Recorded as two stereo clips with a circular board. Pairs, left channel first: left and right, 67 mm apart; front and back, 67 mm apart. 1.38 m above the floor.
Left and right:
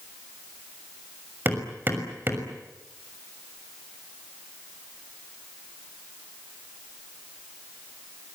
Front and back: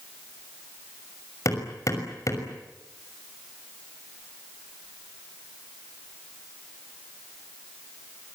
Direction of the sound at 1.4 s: 30° right.